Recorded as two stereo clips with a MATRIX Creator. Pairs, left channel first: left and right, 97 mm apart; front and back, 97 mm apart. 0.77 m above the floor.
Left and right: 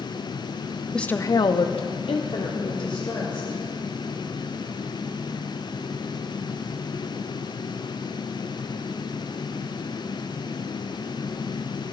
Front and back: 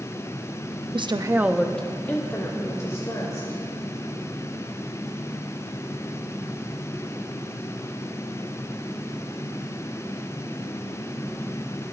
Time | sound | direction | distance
0.9 | a woman speaking | 175° left | 0.7 m